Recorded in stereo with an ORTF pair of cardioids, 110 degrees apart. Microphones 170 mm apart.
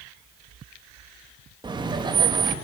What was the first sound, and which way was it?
Laughter, 25° right.